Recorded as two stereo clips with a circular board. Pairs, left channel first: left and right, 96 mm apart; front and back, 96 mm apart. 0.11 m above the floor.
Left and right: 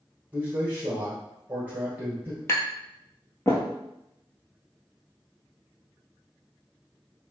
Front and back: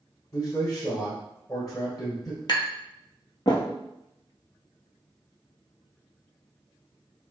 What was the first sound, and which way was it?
A man speaking, 25° right.